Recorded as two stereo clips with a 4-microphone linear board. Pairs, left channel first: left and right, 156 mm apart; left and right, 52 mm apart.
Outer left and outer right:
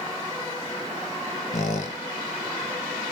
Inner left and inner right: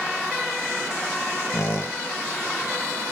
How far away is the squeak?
About 0.6 m.